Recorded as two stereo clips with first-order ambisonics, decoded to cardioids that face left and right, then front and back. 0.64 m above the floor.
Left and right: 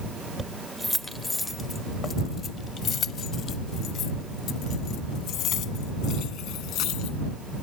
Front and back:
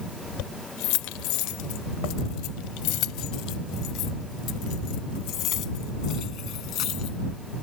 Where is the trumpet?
No trumpet in this recording.